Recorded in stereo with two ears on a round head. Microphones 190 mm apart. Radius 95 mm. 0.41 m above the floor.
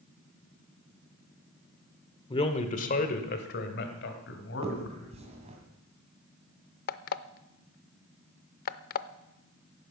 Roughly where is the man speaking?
Left.